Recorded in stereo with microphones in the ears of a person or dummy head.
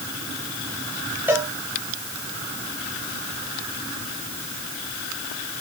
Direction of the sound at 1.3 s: 5° right (ahead or behind).